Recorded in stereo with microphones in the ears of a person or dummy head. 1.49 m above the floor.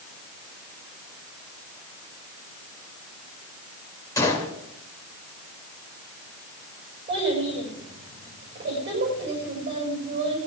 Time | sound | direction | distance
4.2 | a gunshot | 20° left (ahead or behind) | 2.5 m
7.1 | a child speaking | 35° right (ahead or behind) | 6.5 m